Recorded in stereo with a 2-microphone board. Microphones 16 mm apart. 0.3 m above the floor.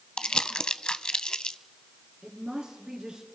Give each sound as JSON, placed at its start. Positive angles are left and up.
{"t": 0.2, "sound": "crumpling", "side_deg": 65, "distance_m": 0.6}
{"t": 2.2, "sound": "a woman speaking", "side_deg": -60, "distance_m": 4.0}